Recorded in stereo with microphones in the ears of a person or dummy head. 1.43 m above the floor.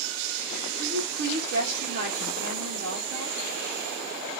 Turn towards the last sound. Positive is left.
turn(degrees=-65)  # may be behind; listen again after turning